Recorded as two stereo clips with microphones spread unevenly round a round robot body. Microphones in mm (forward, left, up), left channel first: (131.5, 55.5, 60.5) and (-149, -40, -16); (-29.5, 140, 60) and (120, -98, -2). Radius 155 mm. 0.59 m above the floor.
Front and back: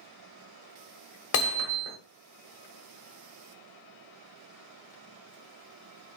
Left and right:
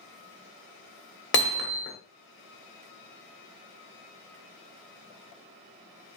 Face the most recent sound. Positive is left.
turn(degrees=65)